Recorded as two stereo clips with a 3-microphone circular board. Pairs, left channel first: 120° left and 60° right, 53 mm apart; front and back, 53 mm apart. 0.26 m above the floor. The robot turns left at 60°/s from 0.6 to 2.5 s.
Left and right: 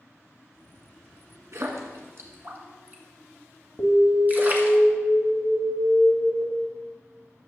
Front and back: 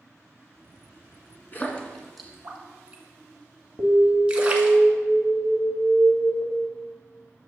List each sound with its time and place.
1.5 s a splash: 50° right, 1.7 m; by 4.8 s 110° right, 1.7 m
3.8 s an alarm: 55° left, 1.7 m